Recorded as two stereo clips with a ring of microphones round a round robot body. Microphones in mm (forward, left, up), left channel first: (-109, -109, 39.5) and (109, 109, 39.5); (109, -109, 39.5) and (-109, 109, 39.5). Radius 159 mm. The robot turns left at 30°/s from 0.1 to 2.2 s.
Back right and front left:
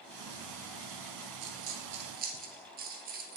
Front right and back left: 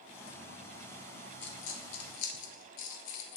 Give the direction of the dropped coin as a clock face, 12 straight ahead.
12 o'clock.